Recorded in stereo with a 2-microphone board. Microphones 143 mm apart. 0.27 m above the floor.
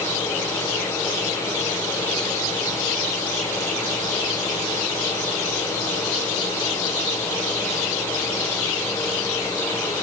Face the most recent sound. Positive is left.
No sound to turn to.